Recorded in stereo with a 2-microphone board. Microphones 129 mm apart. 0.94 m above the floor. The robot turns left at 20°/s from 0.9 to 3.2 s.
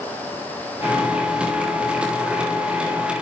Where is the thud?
No thud in this recording.